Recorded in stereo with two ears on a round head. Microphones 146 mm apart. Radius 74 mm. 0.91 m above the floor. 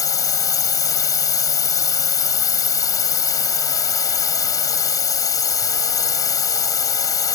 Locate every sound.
0.0 s a drone: 20° left (ahead or behind)